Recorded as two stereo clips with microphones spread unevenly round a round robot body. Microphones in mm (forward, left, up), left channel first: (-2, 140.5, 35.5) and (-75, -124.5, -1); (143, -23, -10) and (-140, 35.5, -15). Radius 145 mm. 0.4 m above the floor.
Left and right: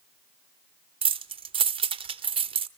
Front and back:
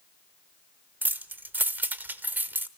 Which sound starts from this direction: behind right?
Keys jangling, at 1.0 s.